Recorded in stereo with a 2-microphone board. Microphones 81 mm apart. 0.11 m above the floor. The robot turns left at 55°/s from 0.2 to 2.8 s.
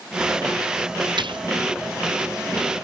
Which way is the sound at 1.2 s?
80° right.